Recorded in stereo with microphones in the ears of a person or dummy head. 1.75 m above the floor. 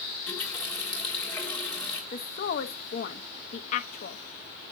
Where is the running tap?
Centre (ahead or behind), 1.6 m.